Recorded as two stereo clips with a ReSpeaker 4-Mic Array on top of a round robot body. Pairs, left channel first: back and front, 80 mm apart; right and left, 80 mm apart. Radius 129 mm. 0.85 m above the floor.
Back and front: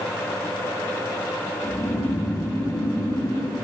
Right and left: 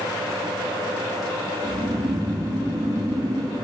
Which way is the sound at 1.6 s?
140° left.